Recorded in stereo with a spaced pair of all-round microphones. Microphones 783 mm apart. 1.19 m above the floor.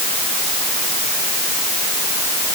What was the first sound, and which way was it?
Only background noise.